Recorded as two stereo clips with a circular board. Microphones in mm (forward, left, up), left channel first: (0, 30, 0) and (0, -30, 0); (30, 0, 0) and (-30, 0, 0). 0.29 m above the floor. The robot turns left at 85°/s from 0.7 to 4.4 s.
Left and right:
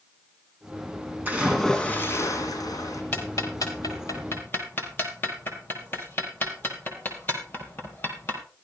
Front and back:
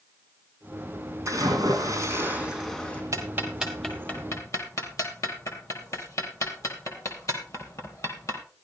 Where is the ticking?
140° left, 3.5 m; by 8.4 s 35° left, 3.5 m.